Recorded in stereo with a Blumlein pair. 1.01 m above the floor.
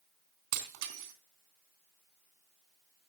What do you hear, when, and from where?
0.5 s breaking glass: 50° right, 3 m